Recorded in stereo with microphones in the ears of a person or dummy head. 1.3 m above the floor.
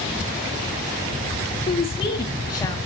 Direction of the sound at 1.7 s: 35° left (ahead or behind).